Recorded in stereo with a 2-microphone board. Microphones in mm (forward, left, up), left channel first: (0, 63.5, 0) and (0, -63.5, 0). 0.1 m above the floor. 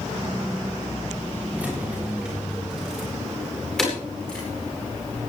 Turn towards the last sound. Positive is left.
turn(degrees=5)  # may be behind; listen again after turning